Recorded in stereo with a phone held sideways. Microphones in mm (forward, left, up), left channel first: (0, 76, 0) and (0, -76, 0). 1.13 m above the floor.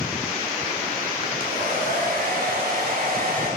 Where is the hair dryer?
80° right, 4 m.